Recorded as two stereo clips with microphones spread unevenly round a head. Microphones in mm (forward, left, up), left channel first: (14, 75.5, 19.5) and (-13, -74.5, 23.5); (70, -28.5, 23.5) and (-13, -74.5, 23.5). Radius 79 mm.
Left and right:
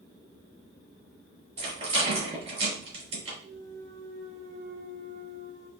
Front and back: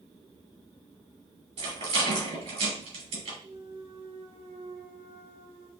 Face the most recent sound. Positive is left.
turn(degrees=-160)